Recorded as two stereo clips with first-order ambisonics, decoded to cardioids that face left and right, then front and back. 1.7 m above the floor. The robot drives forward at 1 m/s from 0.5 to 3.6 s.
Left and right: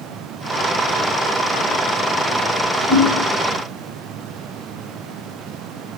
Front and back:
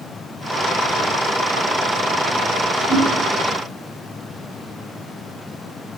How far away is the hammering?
About 9 m.